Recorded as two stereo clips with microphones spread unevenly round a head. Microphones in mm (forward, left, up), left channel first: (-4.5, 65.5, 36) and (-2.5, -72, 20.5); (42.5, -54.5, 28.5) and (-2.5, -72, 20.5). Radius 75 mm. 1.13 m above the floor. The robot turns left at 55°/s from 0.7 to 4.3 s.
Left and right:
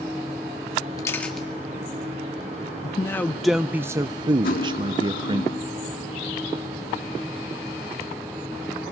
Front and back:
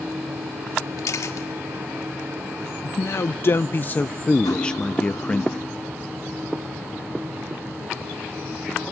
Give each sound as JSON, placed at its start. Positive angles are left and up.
{"t": 1.0, "sound": "a camera shutter", "azimuth_deg": 25, "distance_m": 2.0}
{"t": 2.8, "sound": "a man speaking", "azimuth_deg": 30, "distance_m": 0.5}
{"t": 4.4, "sound": "cutlery clinking", "azimuth_deg": 60, "distance_m": 1.5}